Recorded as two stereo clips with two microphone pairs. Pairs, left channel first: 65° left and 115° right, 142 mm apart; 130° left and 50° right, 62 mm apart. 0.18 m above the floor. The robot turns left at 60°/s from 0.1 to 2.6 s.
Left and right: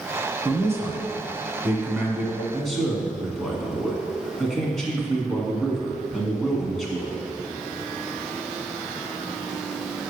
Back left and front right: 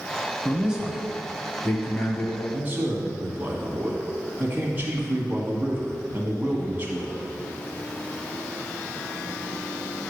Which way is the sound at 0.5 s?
85° right.